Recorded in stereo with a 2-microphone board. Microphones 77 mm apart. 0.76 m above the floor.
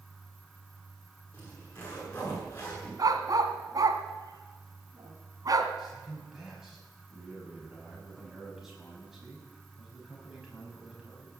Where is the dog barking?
55° right (ahead or behind), 1.5 m.